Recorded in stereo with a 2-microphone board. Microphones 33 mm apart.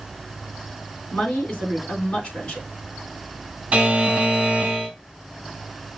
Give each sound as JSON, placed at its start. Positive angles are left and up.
{"t": 1.1, "sound": "a woman speaking", "side_deg": 35, "distance_m": 2.5}
{"t": 3.7, "sound": "a buzzer", "side_deg": -25, "distance_m": 1.8}